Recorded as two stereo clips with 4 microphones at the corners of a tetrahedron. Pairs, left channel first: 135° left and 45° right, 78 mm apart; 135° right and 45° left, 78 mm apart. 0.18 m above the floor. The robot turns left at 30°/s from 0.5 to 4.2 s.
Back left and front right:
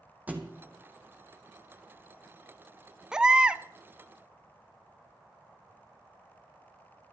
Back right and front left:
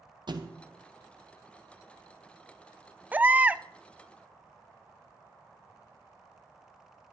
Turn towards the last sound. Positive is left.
turn(degrees=-15)